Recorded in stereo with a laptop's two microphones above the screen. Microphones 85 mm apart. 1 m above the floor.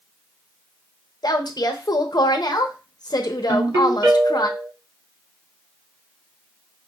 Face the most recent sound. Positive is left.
turn(degrees=-45)  # may be behind; listen again after turning